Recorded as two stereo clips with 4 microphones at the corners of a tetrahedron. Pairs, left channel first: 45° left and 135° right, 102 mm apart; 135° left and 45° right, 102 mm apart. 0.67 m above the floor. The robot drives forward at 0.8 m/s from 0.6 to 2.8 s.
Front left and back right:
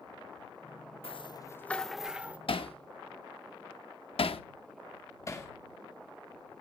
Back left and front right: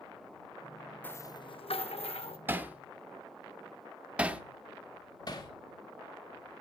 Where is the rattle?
65° left, 0.5 m; by 2.4 s 150° left, 1.0 m.